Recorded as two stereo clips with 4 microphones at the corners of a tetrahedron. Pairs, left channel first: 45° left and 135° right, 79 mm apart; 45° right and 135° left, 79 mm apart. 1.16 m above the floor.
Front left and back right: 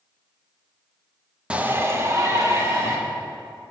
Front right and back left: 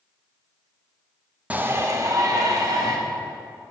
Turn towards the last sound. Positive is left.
turn(degrees=175)